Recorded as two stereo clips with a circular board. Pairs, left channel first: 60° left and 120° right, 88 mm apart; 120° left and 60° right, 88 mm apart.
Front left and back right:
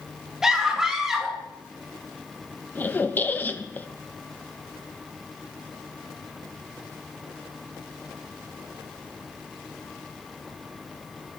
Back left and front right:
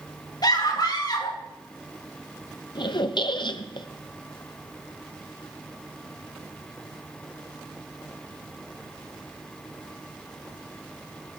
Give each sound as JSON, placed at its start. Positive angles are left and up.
{"t": 0.4, "sound": "a scream", "azimuth_deg": 155, "distance_m": 3.5}
{"t": 2.8, "sound": "a squeak", "azimuth_deg": 125, "distance_m": 0.9}